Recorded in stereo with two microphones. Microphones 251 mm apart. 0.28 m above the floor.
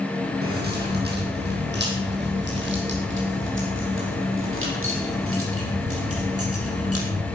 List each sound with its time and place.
0.4 s keys jangling: 40° right (ahead or behind), 7 m; by 7.3 s 70° right (ahead or behind), 5.5 m